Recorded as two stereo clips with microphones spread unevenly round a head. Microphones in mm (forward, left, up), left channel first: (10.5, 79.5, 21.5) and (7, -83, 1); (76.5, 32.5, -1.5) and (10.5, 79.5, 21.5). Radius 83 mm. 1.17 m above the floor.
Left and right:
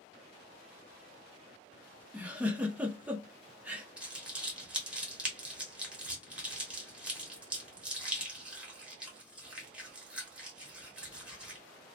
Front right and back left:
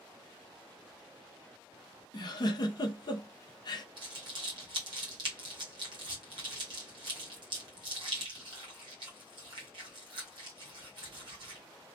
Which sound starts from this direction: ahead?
A giggle, at 2.1 s.